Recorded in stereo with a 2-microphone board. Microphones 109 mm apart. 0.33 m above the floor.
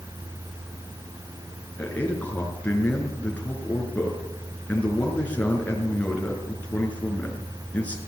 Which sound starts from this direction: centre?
A man speaking, at 1.8 s.